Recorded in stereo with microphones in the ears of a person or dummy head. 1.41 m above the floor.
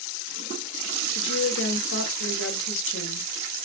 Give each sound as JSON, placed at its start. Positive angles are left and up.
{"t": 1.1, "sound": "a woman speaking", "side_deg": 70, "distance_m": 0.8}